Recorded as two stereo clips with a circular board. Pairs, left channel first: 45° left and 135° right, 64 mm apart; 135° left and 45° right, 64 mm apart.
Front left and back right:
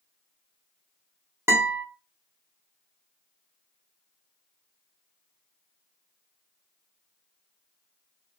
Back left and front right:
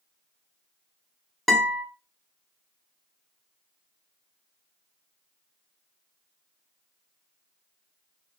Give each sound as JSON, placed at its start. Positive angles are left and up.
{"t": 1.5, "sound": "a guitar", "azimuth_deg": -140, "distance_m": 1.0}